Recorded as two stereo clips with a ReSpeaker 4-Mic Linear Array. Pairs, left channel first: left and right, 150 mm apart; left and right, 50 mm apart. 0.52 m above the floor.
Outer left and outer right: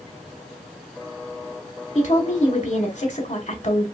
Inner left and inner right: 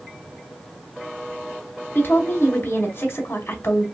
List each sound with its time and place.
1.9 s a woman speaking: 45° left (ahead or behind), 0.9 m